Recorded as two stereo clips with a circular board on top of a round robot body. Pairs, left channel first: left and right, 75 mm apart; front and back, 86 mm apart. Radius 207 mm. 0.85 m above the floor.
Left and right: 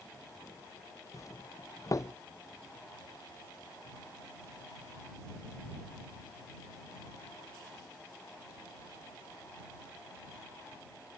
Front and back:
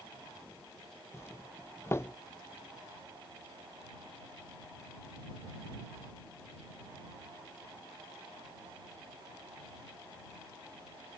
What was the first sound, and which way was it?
A doorbell, 55° left.